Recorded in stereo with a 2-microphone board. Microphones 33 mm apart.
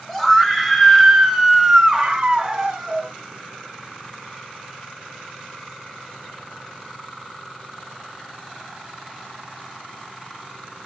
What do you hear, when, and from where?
0.1 s a scream: 5° left (ahead or behind), 1.1 m; by 3.1 s 25° right (ahead or behind), 0.9 m